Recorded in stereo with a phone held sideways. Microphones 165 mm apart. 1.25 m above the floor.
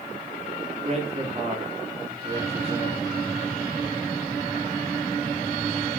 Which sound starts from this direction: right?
A man speaking, at 0.8 s.